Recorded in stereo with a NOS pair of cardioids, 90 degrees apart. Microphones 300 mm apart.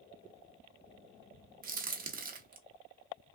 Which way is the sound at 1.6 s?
30° right.